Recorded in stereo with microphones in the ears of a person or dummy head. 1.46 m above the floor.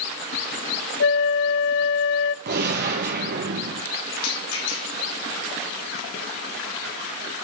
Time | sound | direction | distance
1.0 | a flute | 55° left (ahead or behind) | 0.6 m
2.5 | a gunshot | 50° right (ahead or behind) | 1.9 m
4.2 | a rattle | 80° left | 3 m